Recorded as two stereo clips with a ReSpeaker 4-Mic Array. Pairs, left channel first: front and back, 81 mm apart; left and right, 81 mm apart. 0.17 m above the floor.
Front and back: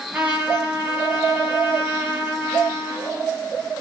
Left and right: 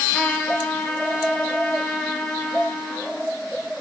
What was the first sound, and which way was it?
A trumpet, 135° left.